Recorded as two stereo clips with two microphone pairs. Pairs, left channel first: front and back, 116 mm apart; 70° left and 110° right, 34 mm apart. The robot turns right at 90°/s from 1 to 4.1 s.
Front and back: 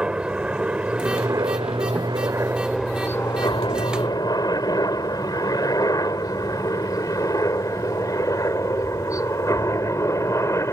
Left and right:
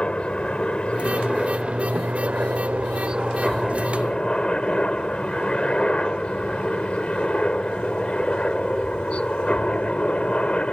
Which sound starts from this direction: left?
A helicopter, at 0.0 s.